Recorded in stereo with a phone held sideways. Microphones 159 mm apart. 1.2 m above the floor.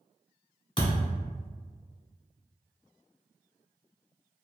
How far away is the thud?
About 1.2 m.